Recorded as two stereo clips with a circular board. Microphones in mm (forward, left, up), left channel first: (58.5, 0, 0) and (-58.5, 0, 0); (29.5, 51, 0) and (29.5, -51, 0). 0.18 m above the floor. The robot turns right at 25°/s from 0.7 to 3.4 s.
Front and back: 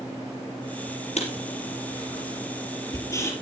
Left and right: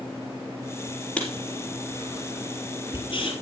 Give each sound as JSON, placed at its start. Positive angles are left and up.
{"t": 1.2, "sound": "writing", "azimuth_deg": 10, "distance_m": 4.5}